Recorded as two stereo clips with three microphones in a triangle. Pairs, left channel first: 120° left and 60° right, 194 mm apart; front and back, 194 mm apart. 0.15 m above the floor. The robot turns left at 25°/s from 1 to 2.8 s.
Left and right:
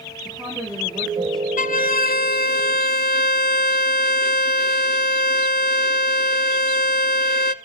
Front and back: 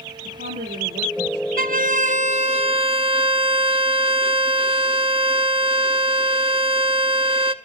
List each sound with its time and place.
0.2 s a woman speaking: 145° right, 6 m; by 1.5 s 155° right, 6 m
1.6 s a violin: 155° left, 0.6 m; by 7.5 s 125° left, 0.6 m